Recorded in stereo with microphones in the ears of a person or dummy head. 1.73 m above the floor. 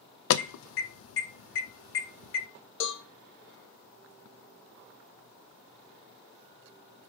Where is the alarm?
80° left, 0.6 m.